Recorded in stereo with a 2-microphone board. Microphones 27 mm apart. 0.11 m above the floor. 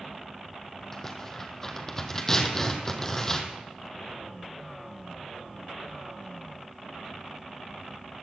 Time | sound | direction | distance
0.9 | tearing paper | 20° left (ahead or behind) | 1.5 m